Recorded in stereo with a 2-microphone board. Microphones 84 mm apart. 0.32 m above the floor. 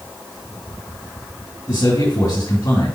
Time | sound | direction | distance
1.7 | a man speaking | 45° left (ahead or behind) | 3.5 m